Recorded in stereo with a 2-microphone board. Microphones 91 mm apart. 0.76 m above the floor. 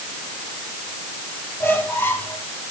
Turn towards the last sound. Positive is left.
turn(degrees=25)  # may be behind; listen again after turning